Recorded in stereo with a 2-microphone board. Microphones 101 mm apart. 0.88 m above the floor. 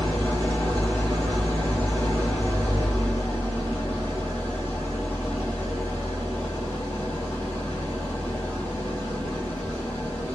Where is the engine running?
25° left (ahead or behind), 1.4 m.